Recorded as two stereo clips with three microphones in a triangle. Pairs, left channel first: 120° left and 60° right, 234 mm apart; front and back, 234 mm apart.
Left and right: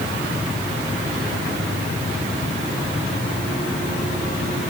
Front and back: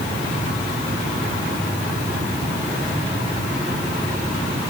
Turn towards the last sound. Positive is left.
No sound to turn to.